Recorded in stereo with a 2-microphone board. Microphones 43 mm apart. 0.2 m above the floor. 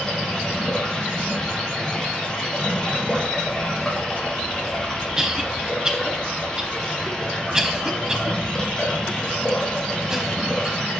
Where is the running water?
15° left (ahead or behind), 3 m.